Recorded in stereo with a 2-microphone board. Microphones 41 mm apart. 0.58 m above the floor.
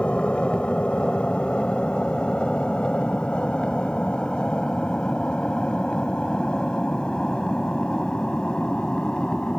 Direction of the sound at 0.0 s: 25° left (ahead or behind).